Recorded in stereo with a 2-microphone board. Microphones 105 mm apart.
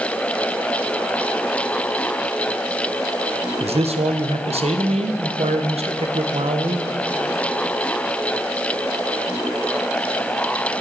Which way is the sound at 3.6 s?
75° right (ahead or behind).